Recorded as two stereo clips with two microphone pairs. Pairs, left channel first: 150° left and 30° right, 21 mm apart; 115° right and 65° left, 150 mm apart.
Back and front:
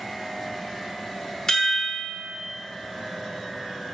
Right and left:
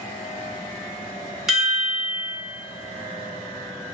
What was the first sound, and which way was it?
A chime, 155° left.